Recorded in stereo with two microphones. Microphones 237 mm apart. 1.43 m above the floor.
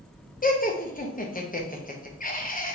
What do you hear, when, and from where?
0.4 s laughter: 35° left (ahead or behind), 0.9 m